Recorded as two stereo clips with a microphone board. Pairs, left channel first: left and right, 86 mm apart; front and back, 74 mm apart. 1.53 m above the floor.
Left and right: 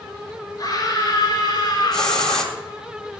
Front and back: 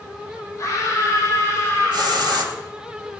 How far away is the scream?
About 7 m.